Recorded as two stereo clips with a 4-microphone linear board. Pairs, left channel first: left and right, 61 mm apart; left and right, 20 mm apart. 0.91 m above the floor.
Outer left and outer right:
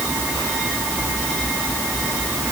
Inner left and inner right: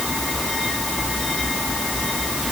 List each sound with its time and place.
Only background noise.